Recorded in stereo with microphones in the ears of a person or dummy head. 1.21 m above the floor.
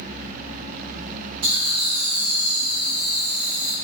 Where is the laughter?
85° right, 1.5 m.